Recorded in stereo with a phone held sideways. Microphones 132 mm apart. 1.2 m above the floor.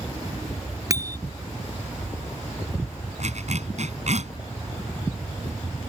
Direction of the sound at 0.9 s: 25° right (ahead or behind).